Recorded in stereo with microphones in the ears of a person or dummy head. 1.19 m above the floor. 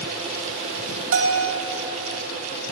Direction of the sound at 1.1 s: 75° right (ahead or behind).